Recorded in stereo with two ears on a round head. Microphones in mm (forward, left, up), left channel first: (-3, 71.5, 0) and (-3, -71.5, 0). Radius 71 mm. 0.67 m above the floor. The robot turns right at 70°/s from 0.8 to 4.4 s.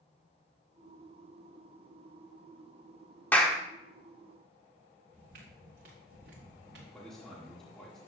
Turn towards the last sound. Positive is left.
turn(degrees=5)  # may be behind; listen again after turning